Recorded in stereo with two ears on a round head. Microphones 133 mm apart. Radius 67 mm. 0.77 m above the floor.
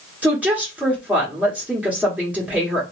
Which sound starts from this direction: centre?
A woman speaking, at 0.2 s.